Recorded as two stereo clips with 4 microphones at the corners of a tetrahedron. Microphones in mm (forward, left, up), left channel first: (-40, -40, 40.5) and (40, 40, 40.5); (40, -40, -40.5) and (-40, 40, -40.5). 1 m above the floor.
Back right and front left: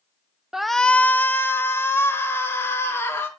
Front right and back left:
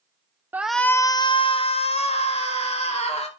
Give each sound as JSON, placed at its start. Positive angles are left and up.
{"t": 0.5, "sound": "a shout", "azimuth_deg": 120, "distance_m": 0.5}